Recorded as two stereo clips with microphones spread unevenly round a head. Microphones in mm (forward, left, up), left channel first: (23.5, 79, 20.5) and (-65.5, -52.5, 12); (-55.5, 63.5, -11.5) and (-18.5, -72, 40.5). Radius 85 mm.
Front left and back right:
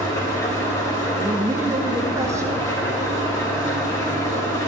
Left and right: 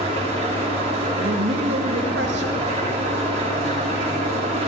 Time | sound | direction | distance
0.0 | an engine running | 15° right | 3.5 m
1.2 | a woman speaking | 55° right | 1.6 m